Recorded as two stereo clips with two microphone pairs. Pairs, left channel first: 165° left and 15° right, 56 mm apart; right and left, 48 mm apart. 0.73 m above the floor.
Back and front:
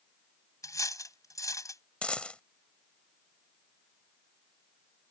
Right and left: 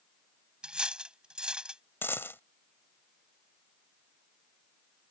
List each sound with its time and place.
0.6 s cutlery clinking: 160° left
2.0 s a dropped coin: 125° right